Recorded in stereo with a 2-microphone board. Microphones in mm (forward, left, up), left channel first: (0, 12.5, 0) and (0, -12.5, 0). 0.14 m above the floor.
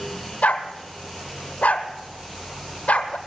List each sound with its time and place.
0.4 s a dog barking: 75° left (ahead or behind), 1.3 m